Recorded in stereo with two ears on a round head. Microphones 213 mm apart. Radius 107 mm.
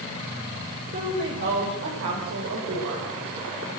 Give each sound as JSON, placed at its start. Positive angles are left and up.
{"t": 0.9, "sound": "a woman speaking", "side_deg": -45, "distance_m": 5.5}